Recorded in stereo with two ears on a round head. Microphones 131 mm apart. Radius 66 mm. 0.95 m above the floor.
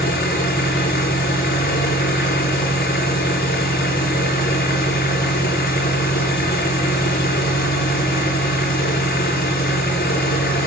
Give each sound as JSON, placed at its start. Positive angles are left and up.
{"t": 0.0, "sound": "an engine running", "side_deg": 70, "distance_m": 5.5}